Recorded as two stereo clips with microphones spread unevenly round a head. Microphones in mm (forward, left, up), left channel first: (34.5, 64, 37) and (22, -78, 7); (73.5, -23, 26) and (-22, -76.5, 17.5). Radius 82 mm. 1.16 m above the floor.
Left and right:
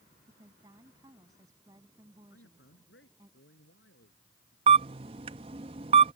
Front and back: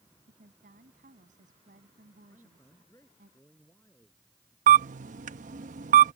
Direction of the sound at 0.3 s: 165° right.